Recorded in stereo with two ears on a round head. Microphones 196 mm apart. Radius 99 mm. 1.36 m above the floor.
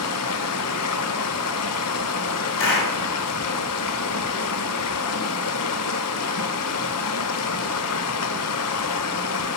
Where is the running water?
75° left (ahead or behind), 0.8 m.